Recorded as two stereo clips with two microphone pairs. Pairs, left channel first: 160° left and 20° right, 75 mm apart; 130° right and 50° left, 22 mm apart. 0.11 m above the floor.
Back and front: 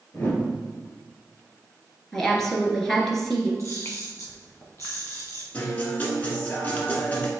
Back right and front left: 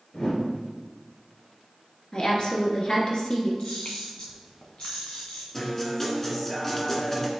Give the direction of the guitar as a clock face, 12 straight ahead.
6 o'clock.